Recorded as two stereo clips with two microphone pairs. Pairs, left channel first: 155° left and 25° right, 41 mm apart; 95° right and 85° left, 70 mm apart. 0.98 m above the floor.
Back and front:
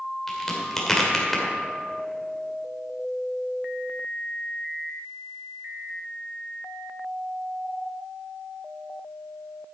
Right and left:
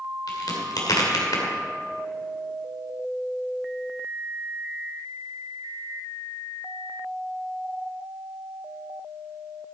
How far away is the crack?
About 2.5 m.